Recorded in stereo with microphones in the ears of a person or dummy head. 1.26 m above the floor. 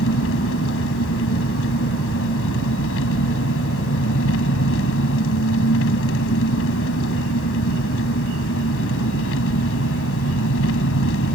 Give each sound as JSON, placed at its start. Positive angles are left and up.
{"t": 0.0, "sound": "an engine running", "side_deg": 80}